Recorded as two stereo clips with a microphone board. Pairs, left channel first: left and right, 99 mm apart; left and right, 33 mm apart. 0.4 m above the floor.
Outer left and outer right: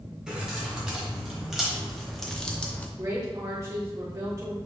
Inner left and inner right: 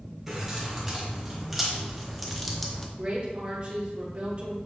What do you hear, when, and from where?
0.3 s keys jangling: 10° right (ahead or behind), 1.8 m; by 2.9 s 15° left (ahead or behind), 0.6 m
3.0 s a woman speaking: 35° right (ahead or behind), 1.1 m